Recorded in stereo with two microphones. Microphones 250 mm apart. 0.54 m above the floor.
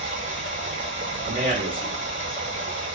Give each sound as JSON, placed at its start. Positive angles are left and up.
{"t": 0.0, "sound": "running water", "side_deg": -50, "distance_m": 0.8}
{"t": 1.2, "sound": "a man speaking", "side_deg": -35, "distance_m": 1.5}